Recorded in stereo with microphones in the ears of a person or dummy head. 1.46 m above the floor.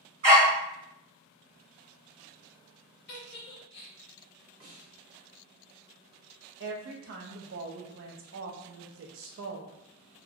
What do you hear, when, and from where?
0.2 s a dog barking: 40° right (ahead or behind), 1.6 m
3.1 s a giggle: 60° left (ahead or behind), 0.6 m
4.6 s a snare drum: 60° right (ahead or behind), 1.4 m
6.6 s a woman speaking: 60° right (ahead or behind), 0.5 m